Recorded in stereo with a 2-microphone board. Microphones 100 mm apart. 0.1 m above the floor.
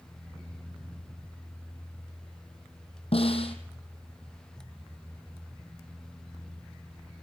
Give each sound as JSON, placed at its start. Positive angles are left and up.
{"t": 3.1, "sound": "a snare drum", "side_deg": 65, "distance_m": 3.0}